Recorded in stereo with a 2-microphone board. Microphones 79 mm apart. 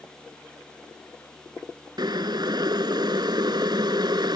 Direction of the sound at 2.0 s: 70° right (ahead or behind).